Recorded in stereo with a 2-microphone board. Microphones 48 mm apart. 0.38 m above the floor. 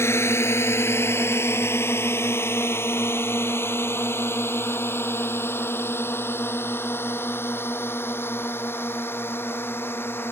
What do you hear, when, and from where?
0.0 s a drone: 60° left (ahead or behind); by 10.3 s 50° left (ahead or behind)